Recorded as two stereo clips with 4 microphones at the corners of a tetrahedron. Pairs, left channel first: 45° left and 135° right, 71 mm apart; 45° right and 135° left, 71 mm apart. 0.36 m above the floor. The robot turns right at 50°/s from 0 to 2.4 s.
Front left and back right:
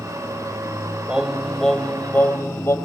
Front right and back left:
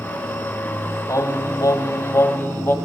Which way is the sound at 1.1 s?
65° right.